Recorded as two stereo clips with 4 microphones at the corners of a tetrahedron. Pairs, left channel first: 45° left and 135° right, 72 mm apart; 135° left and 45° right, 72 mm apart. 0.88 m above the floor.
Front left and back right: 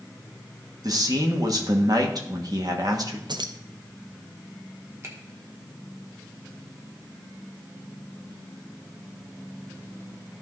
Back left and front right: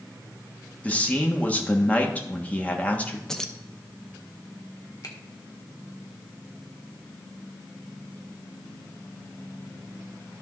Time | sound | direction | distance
0.8 | a man speaking | 155° right | 1.4 m
3.3 | keys jangling | 145° right | 0.6 m
5.0 | a finger snap | 175° left | 1.5 m